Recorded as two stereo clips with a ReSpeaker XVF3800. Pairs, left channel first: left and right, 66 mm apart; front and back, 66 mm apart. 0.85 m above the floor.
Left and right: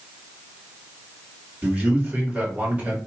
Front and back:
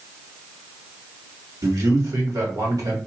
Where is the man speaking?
160° right, 1.6 m.